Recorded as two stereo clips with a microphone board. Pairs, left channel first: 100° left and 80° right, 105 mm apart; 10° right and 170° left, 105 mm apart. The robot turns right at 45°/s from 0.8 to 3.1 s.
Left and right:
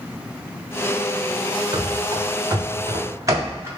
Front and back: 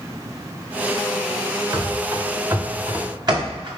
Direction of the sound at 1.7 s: 125° right.